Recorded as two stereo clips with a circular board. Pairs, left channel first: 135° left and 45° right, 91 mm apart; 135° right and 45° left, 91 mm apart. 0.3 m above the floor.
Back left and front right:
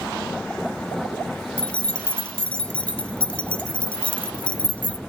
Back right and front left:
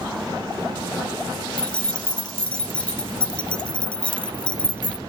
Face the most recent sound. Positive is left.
turn(degrees=180)